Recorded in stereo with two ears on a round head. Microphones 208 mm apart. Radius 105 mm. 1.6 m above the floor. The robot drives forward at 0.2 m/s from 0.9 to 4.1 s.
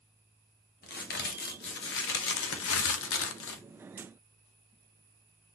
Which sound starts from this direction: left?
A crack, at 0.8 s.